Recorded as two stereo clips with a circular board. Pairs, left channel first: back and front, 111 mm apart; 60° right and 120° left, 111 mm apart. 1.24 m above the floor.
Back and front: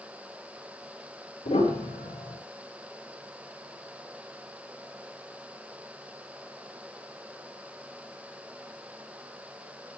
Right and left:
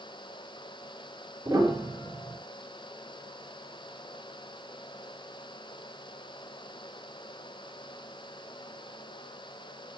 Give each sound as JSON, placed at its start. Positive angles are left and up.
{"t": 1.4, "sound": "a piano", "azimuth_deg": 180, "distance_m": 4.5}